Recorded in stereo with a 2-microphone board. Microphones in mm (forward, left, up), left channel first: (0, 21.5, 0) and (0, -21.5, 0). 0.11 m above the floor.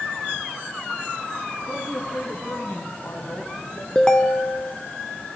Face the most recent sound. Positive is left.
turn(degrees=20)  # may be behind; listen again after turning